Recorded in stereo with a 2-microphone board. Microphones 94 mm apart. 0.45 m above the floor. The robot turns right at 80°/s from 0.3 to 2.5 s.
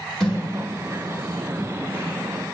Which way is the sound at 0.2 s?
10° left (ahead or behind).